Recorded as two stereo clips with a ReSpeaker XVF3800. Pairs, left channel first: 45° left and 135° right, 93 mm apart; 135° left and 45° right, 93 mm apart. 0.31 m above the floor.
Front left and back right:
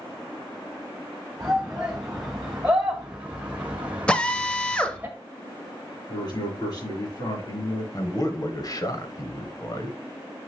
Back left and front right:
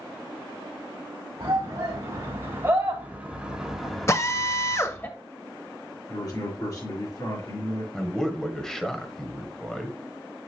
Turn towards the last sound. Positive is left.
turn(degrees=50)